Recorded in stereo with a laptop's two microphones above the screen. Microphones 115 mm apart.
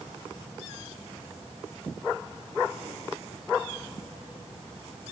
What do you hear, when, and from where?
Only background noise.